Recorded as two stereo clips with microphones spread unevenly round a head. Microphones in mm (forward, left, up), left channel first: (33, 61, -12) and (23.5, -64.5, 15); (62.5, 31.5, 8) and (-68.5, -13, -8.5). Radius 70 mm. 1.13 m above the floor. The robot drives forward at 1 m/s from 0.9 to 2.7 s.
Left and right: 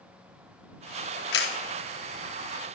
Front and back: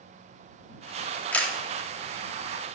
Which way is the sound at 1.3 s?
95° left.